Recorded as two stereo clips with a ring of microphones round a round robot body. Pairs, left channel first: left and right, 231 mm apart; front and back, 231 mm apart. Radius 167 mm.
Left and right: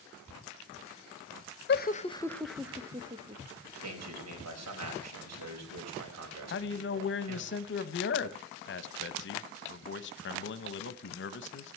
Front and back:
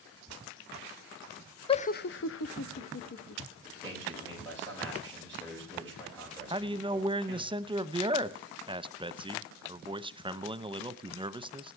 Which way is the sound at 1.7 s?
65° left.